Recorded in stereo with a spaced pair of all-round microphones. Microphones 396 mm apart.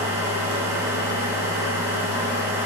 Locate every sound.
0.0 s a machine running: 5° right (ahead or behind), 0.9 m